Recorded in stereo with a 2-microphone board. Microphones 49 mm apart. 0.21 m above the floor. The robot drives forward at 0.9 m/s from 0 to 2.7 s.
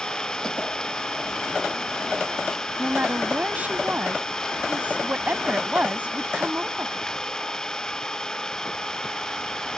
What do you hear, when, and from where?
0.0 s an engine running: 15° left (ahead or behind)
2.8 s a woman speaking: 35° right (ahead or behind)